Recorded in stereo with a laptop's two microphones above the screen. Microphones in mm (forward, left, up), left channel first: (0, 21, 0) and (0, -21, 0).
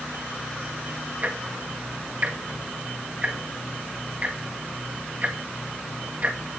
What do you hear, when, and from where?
1.2 s ticking: 40° right (ahead or behind), 1.9 m